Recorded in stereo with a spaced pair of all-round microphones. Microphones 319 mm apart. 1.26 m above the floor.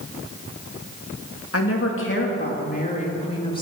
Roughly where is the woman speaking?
Left.